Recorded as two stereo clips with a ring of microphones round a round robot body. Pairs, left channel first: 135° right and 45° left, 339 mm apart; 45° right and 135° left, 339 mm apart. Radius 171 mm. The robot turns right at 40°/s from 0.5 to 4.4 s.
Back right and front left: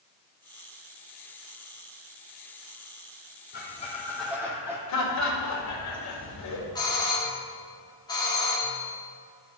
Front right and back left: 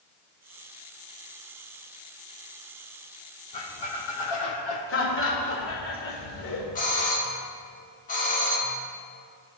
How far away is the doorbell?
About 1.6 m.